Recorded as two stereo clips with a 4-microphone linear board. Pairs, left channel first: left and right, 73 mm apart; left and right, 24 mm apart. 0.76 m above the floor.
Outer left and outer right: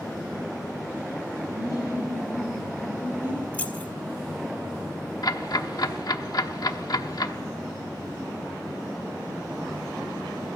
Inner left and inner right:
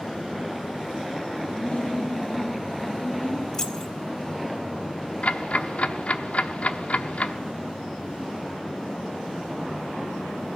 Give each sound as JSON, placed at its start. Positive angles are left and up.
{"t": 1.5, "sound": "laughter", "side_deg": 75, "distance_m": 2.5}
{"t": 3.5, "sound": "keys jangling", "side_deg": 20, "distance_m": 1.2}
{"t": 5.2, "sound": "ticking", "side_deg": 60, "distance_m": 0.9}